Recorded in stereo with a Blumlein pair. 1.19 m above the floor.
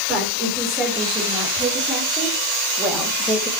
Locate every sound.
0.1 s a woman speaking: 15° right, 5 m; by 3.5 s 5° left, 2.5 m